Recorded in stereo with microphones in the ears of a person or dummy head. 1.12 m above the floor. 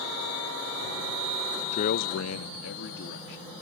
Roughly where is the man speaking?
Left.